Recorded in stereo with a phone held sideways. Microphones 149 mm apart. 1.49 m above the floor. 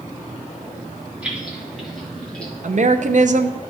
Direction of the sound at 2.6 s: 55° right (ahead or behind).